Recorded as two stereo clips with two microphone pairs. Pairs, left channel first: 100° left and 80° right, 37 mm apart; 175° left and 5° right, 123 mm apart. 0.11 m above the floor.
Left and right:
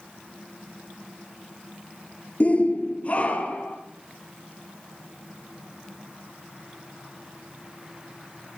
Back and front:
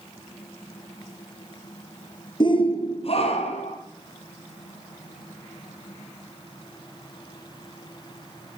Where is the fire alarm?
No fire alarm in this recording.